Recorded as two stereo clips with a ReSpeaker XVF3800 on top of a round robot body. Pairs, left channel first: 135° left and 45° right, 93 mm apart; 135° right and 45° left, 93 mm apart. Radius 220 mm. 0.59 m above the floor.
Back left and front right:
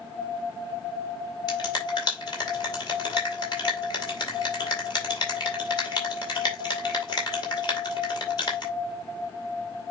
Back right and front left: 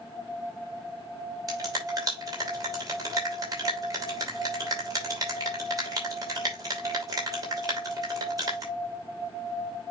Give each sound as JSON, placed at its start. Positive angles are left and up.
{"t": 1.5, "sound": "a finger snap", "azimuth_deg": 90, "distance_m": 5.5}